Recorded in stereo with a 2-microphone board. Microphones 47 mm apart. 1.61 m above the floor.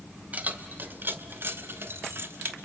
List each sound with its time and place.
0.3 s keys jangling: 30° right (ahead or behind), 1.2 m; by 2.5 s 50° right (ahead or behind), 1.2 m